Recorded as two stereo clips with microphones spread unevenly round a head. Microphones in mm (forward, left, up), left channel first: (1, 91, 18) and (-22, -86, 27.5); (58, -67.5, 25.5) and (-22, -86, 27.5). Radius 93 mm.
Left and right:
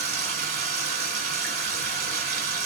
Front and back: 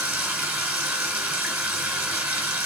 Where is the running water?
115° right, 2 m.